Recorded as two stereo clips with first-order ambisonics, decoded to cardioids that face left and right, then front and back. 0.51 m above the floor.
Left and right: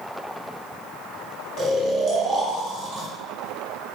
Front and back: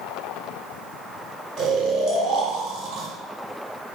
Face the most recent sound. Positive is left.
turn(degrees=-145)